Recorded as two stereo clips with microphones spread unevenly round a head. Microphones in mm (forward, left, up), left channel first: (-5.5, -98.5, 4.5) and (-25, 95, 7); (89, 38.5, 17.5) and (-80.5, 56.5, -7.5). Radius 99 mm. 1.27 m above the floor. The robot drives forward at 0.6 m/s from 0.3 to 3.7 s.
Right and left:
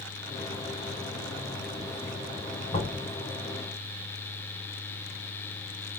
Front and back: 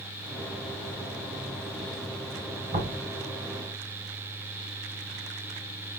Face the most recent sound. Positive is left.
turn(degrees=-150)